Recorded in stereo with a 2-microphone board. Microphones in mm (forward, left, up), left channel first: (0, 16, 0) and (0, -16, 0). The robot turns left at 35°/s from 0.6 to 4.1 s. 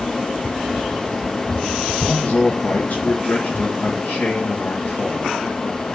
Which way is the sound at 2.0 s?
140° left.